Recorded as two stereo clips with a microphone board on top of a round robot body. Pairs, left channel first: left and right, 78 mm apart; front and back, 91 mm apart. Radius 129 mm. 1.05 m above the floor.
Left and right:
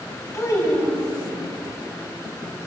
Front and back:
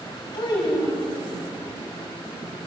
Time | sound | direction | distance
0.3 | a child speaking | 40° left | 5.5 m